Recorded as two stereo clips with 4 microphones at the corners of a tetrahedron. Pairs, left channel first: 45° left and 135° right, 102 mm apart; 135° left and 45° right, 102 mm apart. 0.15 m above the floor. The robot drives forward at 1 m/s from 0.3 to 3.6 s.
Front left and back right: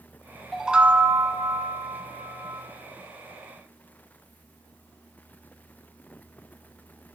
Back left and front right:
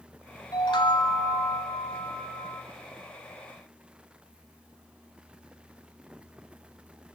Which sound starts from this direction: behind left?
A chime, at 0.5 s.